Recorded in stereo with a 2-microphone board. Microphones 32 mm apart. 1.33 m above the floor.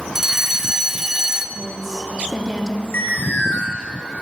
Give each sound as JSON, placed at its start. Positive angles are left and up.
{"t": 0.1, "sound": "a fire alarm", "side_deg": -10, "distance_m": 1.6}
{"t": 1.6, "sound": "a woman speaking", "side_deg": -10, "distance_m": 3.0}
{"t": 2.9, "sound": "an alarm", "side_deg": 75, "distance_m": 7.0}